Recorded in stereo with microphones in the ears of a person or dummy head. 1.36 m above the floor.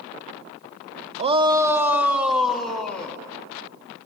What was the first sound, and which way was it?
A shout, 35° right (ahead or behind).